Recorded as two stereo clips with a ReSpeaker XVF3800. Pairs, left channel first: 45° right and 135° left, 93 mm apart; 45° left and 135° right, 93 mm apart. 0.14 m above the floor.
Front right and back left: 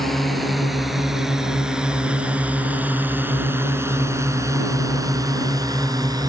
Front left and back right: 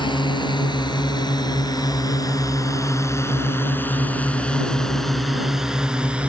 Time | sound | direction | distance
0.0 | a drone | 45° left | ?